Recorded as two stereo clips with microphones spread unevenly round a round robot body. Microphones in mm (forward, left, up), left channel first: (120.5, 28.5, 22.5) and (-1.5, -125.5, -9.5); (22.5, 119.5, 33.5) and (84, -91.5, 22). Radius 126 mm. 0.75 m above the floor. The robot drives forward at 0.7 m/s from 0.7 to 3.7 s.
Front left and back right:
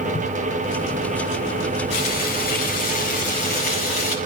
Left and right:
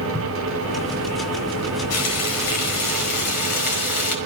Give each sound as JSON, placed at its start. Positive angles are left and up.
{"t": 0.1, "sound": "a thud", "azimuth_deg": 10, "distance_m": 3.0}
{"t": 1.9, "sound": "frying", "azimuth_deg": 105, "distance_m": 4.5}